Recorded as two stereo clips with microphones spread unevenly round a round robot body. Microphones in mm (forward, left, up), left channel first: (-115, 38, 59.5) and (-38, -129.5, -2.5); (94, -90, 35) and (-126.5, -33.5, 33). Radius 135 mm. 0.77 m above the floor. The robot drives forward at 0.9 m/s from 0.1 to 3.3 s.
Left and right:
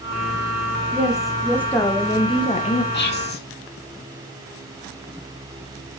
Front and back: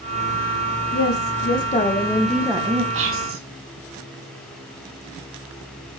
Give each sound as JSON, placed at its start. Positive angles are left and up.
{"t": 0.9, "sound": "a woman speaking", "azimuth_deg": 5, "distance_m": 1.6}
{"t": 2.9, "sound": "whispering", "azimuth_deg": 150, "distance_m": 1.7}